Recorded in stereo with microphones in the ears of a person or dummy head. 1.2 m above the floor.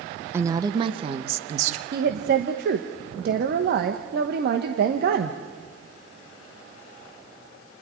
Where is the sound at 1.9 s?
60° right (ahead or behind), 1.2 m.